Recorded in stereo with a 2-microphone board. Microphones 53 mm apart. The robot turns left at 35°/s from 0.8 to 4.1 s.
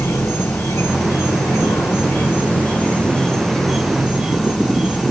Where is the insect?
100° left, 1.2 m; by 5.1 s 15° right, 1.2 m.